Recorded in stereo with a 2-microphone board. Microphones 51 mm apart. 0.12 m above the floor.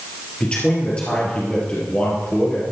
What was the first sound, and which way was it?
A man speaking, 25° left (ahead or behind).